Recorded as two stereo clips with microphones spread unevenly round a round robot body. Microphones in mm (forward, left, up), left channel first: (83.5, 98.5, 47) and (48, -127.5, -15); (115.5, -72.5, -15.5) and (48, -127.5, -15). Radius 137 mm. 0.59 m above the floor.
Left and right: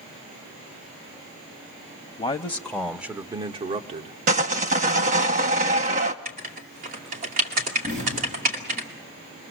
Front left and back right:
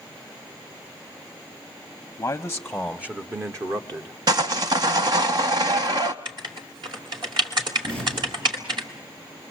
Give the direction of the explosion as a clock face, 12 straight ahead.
5 o'clock.